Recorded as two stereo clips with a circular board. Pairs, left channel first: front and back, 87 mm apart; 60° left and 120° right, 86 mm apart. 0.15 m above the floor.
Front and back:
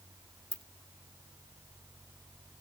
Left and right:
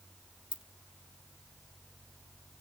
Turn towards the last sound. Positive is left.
turn(degrees=75)